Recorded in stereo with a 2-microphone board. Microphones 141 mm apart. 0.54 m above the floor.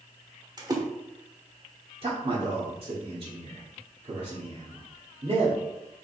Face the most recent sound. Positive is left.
turn(degrees=-45)  # may be behind; listen again after turning